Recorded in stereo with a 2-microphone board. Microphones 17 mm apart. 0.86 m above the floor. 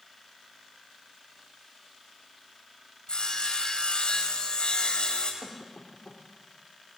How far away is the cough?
About 3 m.